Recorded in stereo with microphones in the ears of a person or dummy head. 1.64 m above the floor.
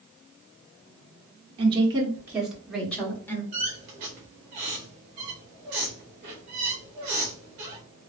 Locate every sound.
1.6 s a woman speaking: 30° right (ahead or behind), 1.2 m; by 3.4 s 20° left (ahead or behind), 1.5 m
3.5 s a squeak: 40° right (ahead or behind), 1.1 m